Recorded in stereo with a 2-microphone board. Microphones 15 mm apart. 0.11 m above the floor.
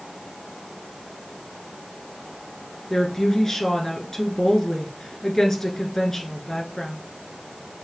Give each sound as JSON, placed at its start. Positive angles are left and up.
{"t": 2.9, "sound": "a woman speaking", "side_deg": 35, "distance_m": 1.2}